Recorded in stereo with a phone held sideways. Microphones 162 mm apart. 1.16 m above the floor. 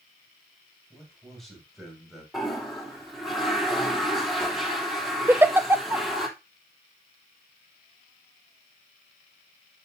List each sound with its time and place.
0.9 s a man speaking: 5° left (ahead or behind), 6.5 m; by 2.2 s centre (ahead or behind), 5.5 m
2.3 s a toilet flushing: centre (ahead or behind), 3 m
5.3 s a giggle: 15° right (ahead or behind), 0.6 m